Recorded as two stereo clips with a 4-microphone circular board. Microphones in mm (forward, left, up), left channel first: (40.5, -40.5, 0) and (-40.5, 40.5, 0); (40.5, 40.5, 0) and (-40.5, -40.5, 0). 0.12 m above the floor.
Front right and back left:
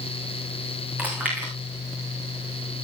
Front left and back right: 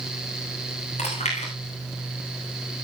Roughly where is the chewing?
Ahead left.